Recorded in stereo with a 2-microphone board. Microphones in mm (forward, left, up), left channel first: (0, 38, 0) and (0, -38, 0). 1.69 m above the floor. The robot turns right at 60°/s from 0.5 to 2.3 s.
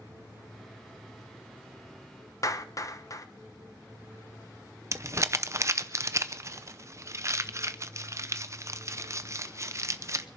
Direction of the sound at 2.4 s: 45° left (ahead or behind).